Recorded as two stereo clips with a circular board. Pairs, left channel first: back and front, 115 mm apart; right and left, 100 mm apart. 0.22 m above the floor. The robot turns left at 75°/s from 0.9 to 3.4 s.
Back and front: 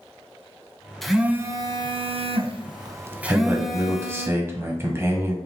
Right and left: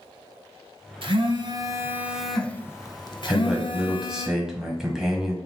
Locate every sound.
1.0 s a phone buzzing: 95° left, 0.6 m; by 4.3 s 85° right, 0.6 m
3.3 s a man speaking: 20° left, 1.1 m; by 5.4 s 10° left, 1.1 m